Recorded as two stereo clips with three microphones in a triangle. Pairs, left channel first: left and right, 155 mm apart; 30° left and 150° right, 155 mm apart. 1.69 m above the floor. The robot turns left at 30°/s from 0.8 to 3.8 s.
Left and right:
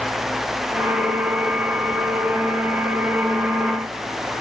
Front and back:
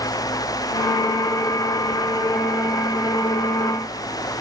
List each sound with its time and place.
Only background noise.